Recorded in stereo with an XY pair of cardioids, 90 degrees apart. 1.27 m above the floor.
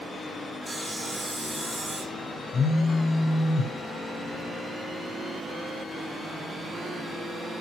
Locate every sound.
0.7 s sawing: 5° right, 1.1 m
2.5 s a phone buzzing: 40° left, 0.7 m